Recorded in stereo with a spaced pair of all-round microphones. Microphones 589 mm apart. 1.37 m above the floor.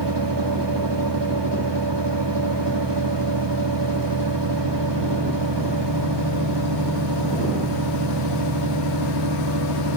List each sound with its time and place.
0.0 s a fan: 45° right (ahead or behind)